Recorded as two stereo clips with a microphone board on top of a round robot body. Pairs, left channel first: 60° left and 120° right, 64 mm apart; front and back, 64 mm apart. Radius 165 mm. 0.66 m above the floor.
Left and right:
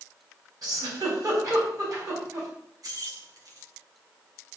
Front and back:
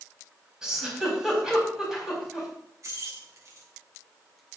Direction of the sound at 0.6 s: 95° right.